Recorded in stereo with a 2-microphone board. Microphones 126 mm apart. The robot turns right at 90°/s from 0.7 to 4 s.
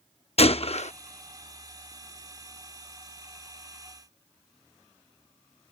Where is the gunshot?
50° left (ahead or behind); by 0.9 s 65° left (ahead or behind).